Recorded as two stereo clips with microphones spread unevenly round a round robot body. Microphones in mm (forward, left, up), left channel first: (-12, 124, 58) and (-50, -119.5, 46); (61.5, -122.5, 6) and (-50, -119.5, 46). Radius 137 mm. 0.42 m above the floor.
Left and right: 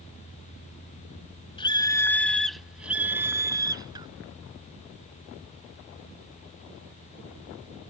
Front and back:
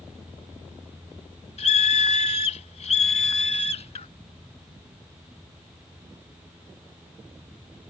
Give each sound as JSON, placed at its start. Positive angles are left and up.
{"t": 1.6, "sound": "a scream", "azimuth_deg": 10}